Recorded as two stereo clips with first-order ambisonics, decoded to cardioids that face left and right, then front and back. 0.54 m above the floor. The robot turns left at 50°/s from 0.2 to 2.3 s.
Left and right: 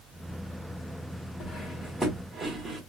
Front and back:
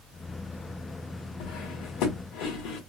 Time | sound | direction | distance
1.4 | cutlery clinking | 25° left | 0.9 m